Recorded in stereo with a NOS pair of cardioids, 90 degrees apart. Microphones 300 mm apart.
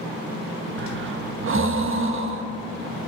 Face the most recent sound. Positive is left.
turn(degrees=-45)